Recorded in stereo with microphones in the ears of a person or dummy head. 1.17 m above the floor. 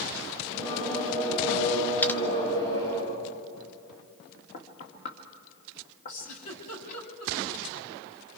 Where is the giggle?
45° left (ahead or behind), 3.5 m.